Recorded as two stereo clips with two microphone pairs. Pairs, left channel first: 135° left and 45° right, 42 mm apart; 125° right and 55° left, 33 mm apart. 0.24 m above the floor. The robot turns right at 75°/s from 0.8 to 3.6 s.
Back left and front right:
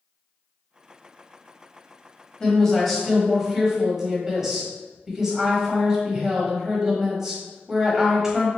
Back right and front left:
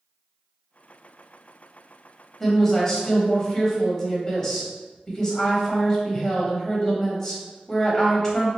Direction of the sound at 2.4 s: 175° left.